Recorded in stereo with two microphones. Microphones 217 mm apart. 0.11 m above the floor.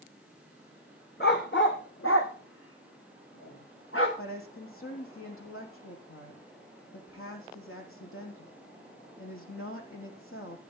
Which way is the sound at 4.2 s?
75° left (ahead or behind).